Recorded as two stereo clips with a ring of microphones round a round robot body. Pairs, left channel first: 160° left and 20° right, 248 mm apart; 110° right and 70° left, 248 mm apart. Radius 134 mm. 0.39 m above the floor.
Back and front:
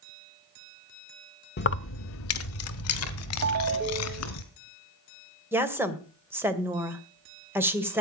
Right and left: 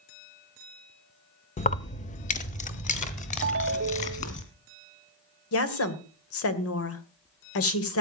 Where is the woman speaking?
105° right, 2 m.